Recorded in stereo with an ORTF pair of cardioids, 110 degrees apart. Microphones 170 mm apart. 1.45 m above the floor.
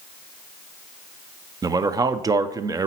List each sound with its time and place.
1.6 s a man speaking: 20° right, 0.5 m